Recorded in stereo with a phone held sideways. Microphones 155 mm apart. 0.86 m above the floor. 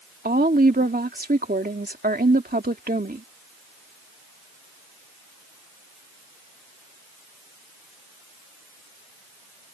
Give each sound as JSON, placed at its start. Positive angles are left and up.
{"t": 0.2, "sound": "a woman speaking", "side_deg": -70}